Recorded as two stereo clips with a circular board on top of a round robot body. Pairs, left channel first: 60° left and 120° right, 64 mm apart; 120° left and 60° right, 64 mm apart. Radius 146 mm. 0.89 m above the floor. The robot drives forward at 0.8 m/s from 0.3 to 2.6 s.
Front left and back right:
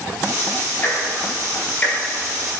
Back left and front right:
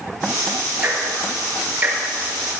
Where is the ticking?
Straight ahead, 3 m.